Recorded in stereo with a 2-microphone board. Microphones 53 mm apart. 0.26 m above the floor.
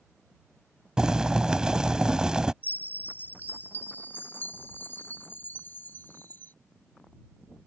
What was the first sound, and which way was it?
Boiling, 15° right (ahead or behind).